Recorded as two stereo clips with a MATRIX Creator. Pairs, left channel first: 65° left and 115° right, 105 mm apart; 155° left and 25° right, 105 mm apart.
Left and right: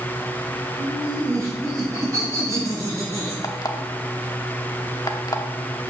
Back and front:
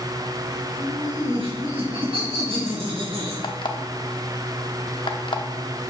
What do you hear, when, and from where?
0.8 s laughter: 55° right, 4 m; by 3.3 s 50° right, 5.5 m
3.4 s an alarm clock: 120° left, 0.8 m